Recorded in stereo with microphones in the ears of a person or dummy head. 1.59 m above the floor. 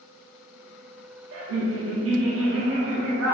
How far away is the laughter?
About 0.7 m.